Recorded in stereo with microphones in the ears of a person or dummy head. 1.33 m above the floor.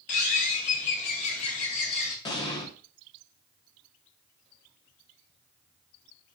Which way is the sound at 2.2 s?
25° left (ahead or behind).